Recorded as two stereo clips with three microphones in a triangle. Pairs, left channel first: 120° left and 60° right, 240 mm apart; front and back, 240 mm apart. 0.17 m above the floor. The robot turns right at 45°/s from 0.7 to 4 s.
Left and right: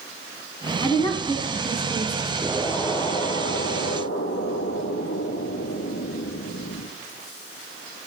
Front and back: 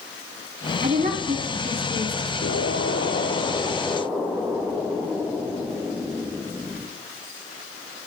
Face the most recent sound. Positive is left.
turn(degrees=95)